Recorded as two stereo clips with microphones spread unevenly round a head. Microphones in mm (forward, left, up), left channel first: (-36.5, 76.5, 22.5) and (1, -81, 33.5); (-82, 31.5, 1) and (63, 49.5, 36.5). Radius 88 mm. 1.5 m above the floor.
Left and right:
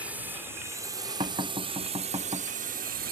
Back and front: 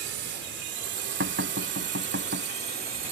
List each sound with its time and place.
0.0 s a drone: 5° left; by 3.1 s 40° right
1.2 s knocking: 10° right